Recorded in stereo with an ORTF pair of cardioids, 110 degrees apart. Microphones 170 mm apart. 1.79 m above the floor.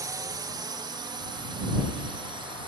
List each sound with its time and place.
0.0 s a drone: 20° right; by 2.7 s 30° right